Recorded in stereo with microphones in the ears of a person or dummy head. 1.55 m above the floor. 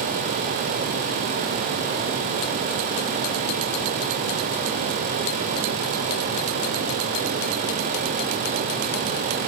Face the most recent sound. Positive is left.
No sound to turn to.